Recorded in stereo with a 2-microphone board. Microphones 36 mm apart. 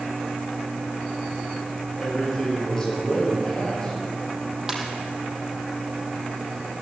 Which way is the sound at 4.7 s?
15° right (ahead or behind).